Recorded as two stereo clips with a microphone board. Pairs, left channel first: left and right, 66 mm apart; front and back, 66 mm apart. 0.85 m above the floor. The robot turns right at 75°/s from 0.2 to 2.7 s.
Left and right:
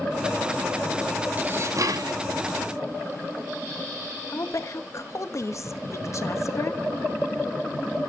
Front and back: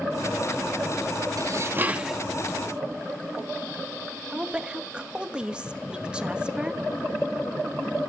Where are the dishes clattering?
150° right, 0.8 m; by 2.2 s 90° right, 0.8 m.